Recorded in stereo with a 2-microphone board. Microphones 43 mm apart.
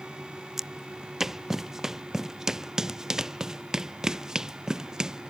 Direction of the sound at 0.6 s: 10° right (ahead or behind).